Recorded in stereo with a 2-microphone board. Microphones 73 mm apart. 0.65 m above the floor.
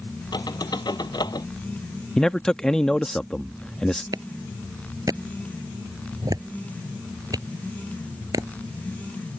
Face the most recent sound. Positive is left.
turn(degrees=-60)  # may be behind; listen again after turning